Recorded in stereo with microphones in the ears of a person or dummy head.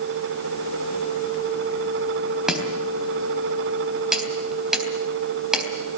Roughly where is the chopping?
Centre.